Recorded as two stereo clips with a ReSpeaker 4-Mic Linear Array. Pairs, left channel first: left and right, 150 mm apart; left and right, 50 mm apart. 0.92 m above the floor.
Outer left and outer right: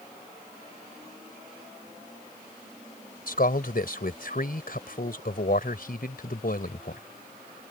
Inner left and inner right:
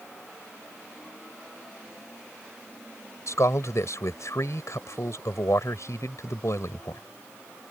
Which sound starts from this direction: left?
A man speaking, at 3.3 s.